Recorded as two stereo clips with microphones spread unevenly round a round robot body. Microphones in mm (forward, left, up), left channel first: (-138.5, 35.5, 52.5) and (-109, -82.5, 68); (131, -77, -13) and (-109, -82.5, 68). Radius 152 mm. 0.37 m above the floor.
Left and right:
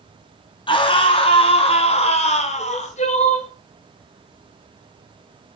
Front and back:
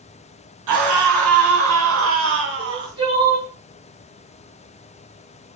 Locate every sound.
0.7 s a scream: 145° left, 5 m; by 2.9 s 115° left, 4.5 m
2.6 s crying: 100° left, 4 m